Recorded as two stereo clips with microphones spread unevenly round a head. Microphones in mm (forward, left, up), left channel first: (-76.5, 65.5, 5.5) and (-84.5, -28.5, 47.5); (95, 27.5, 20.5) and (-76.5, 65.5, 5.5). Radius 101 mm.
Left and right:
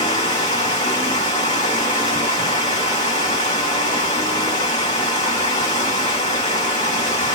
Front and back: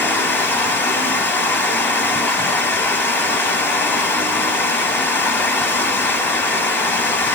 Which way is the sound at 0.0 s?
60° left.